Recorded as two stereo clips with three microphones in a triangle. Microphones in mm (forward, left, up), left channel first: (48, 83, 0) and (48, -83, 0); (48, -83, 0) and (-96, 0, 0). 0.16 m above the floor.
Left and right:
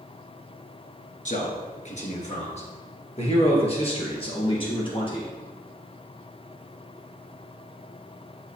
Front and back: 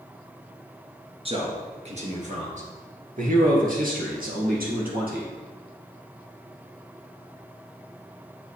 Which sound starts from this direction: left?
A man speaking, at 1.2 s.